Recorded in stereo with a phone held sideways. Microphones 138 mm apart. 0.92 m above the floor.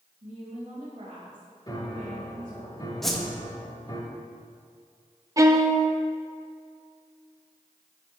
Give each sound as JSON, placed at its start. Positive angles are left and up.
{"t": 0.2, "sound": "a woman speaking", "side_deg": -65, "distance_m": 2.0}
{"t": 1.7, "sound": "a piano", "side_deg": 30, "distance_m": 0.9}
{"t": 3.0, "sound": "a whoosh", "side_deg": 0, "distance_m": 0.8}
{"t": 5.4, "sound": "a violin", "side_deg": -25, "distance_m": 0.6}